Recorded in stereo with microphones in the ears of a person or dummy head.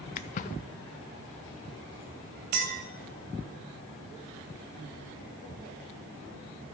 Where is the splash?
45° left (ahead or behind), 0.5 m.